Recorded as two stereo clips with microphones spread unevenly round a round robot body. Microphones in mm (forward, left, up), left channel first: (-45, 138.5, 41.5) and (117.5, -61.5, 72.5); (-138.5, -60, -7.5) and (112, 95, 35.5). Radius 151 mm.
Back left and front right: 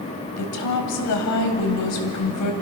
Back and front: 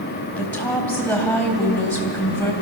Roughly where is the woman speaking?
Behind left.